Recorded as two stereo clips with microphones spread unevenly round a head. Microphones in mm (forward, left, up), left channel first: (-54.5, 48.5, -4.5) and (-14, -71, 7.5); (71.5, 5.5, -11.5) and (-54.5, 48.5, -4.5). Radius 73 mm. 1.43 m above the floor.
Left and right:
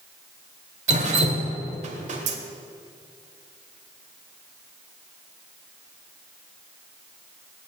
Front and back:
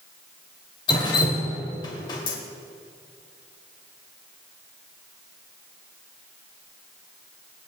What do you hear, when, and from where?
0.9 s dripping: 80° right, 2 m